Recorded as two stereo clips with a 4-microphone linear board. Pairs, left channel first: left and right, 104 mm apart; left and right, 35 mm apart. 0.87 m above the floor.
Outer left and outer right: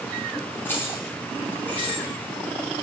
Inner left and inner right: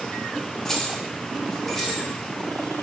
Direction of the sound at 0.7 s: 20° left (ahead or behind).